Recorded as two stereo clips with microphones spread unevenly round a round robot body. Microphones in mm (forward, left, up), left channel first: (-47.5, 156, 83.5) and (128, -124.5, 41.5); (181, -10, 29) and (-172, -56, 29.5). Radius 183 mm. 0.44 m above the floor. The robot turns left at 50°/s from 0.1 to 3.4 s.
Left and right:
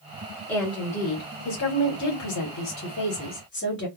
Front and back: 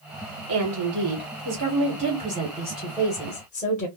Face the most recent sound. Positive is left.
turn(degrees=70)